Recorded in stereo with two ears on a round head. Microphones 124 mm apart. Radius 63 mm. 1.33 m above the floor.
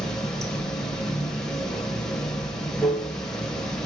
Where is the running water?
5° left (ahead or behind), 1.1 m.